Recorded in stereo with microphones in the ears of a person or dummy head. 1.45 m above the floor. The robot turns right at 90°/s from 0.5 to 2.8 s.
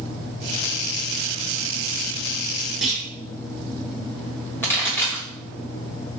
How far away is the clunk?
About 0.8 m.